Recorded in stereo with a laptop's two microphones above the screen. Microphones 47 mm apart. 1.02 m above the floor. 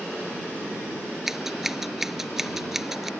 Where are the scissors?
5° right (ahead or behind).